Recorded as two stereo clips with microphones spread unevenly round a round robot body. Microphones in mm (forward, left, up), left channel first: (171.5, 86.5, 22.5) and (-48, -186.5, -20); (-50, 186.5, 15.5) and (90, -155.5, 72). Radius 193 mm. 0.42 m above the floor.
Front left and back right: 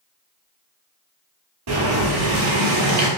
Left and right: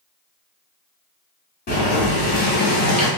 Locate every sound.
1.7 s boiling: straight behind, 1.1 m